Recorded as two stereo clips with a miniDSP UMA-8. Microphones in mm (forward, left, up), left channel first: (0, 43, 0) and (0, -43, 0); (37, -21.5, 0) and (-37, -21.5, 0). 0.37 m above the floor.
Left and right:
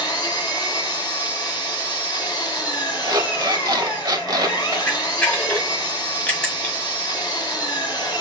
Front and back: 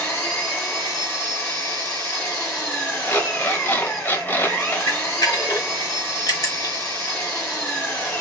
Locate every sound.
0.0 s an engine running: 60° left, 2 m
3.0 s an alarm clock: 60° right, 0.9 m
4.9 s a camera shutter: 20° left, 1.5 m